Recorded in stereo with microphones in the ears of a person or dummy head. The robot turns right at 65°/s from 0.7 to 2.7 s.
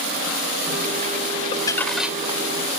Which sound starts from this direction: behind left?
Crumpling, at 1.5 s.